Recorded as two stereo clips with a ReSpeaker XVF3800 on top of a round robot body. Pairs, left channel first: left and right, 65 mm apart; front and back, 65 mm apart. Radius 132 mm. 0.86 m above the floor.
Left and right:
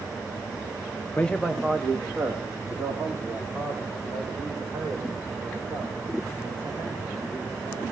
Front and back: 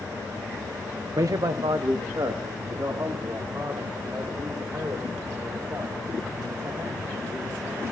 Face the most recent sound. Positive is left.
turn(degrees=-135)